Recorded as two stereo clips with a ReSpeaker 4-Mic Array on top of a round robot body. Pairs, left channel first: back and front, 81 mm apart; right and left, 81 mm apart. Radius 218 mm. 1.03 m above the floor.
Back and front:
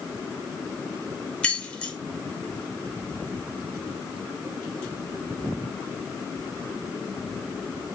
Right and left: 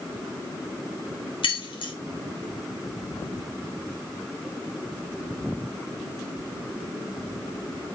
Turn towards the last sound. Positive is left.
turn(degrees=-105)